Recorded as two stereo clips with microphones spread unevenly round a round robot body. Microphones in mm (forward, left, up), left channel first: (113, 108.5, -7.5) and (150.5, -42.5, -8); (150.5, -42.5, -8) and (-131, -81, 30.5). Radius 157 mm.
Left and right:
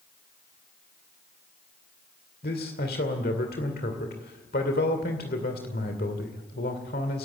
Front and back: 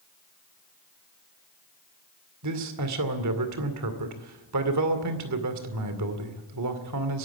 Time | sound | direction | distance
2.4 | a man speaking | 150° left | 2.5 m